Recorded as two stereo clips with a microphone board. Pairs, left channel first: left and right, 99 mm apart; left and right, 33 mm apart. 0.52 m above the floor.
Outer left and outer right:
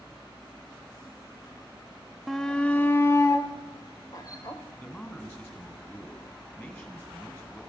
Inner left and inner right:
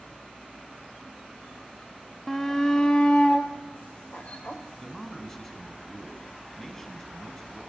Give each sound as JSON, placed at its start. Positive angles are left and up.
{"t": 2.3, "sound": "a shout", "side_deg": 0, "distance_m": 0.7}
{"t": 4.8, "sound": "a man speaking", "side_deg": 20, "distance_m": 5.0}